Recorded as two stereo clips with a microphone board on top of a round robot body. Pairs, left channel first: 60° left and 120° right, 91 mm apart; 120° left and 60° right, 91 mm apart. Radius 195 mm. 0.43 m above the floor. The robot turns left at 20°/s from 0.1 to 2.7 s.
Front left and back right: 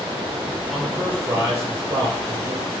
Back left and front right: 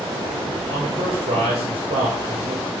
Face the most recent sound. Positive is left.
turn(degrees=-80)